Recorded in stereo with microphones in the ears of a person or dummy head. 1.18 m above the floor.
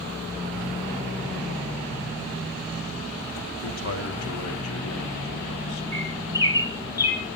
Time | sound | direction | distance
3.6 | a man speaking | 70° left (ahead or behind) | 3 m
5.9 | a bird | 15° left (ahead or behind) | 2.5 m